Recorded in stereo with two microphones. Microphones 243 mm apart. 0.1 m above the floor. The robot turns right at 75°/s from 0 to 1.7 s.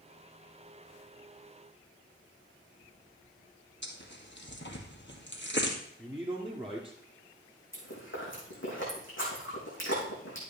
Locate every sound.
3.8 s tearing paper: 50° left (ahead or behind), 2 m
6.0 s a man speaking: 5° right (ahead or behind), 1.8 m
7.7 s chewing: 55° left (ahead or behind), 4.5 m